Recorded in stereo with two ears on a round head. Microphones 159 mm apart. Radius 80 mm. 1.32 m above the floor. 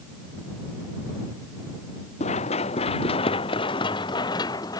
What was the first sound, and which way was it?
Running footsteps, 40° left (ahead or behind).